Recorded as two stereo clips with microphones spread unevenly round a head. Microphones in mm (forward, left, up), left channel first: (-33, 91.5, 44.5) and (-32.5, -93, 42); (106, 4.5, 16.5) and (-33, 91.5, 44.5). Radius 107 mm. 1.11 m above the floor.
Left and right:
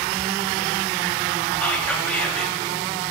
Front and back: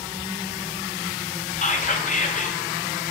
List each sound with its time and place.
1.6 s whispering: 5° left, 1.0 m